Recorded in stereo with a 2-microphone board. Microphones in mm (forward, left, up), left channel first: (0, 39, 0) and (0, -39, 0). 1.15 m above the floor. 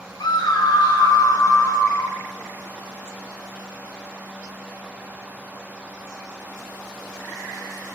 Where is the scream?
65° left (ahead or behind), 1.0 m; by 2.2 s 50° left (ahead or behind), 2.5 m.